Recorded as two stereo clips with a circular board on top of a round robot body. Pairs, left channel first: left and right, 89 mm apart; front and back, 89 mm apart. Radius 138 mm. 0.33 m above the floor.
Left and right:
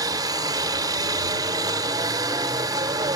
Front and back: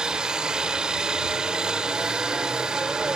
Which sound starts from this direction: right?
A helicopter, at 0.0 s.